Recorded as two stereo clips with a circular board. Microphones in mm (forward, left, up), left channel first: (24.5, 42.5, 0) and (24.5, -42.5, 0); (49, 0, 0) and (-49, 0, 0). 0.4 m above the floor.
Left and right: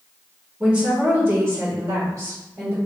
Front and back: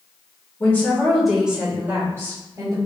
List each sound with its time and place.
0.6 s a woman speaking: 30° right, 1.1 m; by 2.8 s 130° right, 1.8 m